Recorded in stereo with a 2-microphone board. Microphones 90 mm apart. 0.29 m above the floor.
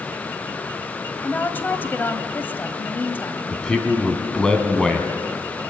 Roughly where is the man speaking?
Centre.